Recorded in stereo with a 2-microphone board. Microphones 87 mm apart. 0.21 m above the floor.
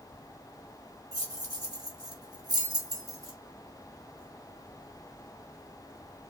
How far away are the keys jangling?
About 1.2 m.